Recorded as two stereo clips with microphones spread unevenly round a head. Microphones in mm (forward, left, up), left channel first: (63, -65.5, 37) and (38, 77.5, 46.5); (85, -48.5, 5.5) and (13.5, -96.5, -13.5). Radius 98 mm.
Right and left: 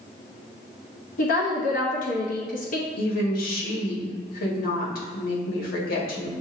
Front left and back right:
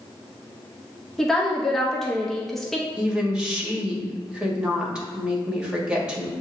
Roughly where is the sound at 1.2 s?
Ahead right.